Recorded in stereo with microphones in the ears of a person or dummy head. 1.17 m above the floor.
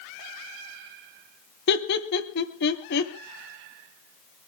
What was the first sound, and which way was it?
Laughter, 65° left (ahead or behind).